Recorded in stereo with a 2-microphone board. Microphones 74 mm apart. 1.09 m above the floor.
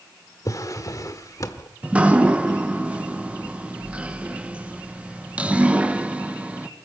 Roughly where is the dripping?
Centre.